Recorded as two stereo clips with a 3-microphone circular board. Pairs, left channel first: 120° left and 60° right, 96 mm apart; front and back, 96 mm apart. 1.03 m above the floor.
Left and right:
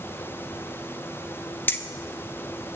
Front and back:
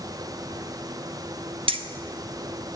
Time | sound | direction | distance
1.7 | keys jangling | 175° right | 0.5 m